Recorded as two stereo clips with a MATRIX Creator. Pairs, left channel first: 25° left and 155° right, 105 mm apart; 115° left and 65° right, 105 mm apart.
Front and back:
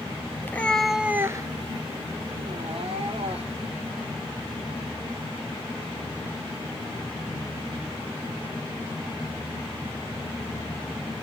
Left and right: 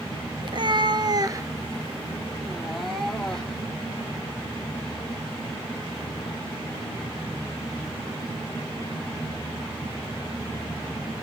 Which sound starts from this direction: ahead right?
A cat meowing, at 0.4 s.